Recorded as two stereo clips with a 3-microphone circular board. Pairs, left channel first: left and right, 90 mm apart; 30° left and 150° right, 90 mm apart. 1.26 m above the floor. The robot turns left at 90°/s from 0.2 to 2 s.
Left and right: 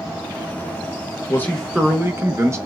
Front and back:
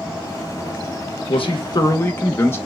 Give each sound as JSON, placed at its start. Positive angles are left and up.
{"t": 1.3, "sound": "a man speaking", "azimuth_deg": 30, "distance_m": 1.0}